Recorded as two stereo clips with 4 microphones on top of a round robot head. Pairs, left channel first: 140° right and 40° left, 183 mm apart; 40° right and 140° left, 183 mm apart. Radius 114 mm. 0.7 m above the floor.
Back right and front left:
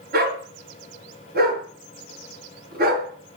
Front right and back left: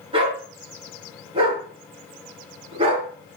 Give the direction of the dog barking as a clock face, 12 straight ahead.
9 o'clock.